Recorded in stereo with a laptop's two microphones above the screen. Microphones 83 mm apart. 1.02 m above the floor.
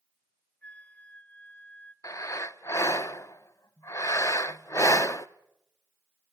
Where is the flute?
20° left (ahead or behind), 0.9 m.